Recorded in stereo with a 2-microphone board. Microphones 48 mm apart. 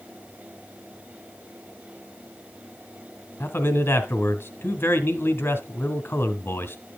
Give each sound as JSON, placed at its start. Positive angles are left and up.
{"t": 3.4, "sound": "a man speaking", "side_deg": 50, "distance_m": 2.0}